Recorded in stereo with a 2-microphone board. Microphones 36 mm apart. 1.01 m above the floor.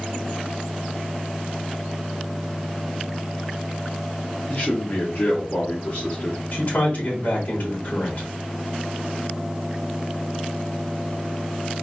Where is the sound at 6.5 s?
45° left (ahead or behind), 3 m.